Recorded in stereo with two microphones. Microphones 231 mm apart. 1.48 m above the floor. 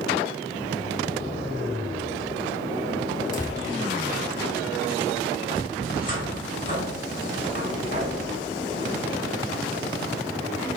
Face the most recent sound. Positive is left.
turn(degrees=35)  # may be behind; listen again after turning